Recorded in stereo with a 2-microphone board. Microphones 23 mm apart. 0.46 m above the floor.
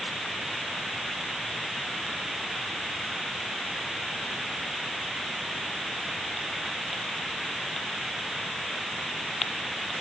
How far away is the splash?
I don't hear a splash.